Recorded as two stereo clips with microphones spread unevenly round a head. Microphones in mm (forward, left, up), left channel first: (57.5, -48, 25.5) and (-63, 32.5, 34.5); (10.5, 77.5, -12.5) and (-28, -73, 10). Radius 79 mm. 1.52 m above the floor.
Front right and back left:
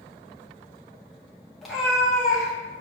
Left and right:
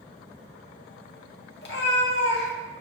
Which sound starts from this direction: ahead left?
A cat meowing, at 1.6 s.